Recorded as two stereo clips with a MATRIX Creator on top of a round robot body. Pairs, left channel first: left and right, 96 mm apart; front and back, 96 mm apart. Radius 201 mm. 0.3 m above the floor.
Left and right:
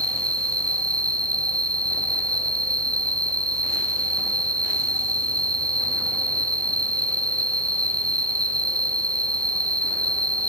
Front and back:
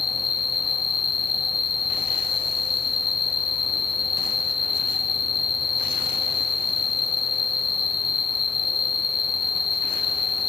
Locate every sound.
0.0 s an insect: 40° right, 0.9 m